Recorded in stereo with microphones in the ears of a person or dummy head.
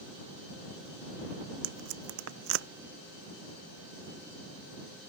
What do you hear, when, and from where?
1.6 s tape being pulled: 75° right (ahead or behind)